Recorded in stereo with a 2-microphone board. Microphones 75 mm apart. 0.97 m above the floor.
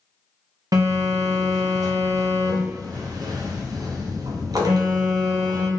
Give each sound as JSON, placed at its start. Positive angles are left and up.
{"t": 0.7, "sound": "a phone buzzing", "side_deg": -55, "distance_m": 0.5}